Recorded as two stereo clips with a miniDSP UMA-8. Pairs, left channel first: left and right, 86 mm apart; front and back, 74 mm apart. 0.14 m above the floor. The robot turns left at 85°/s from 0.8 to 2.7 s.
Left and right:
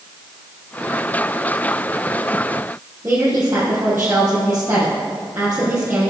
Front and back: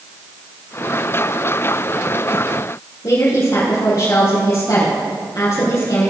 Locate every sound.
3.0 s a woman speaking: 25° right, 3.5 m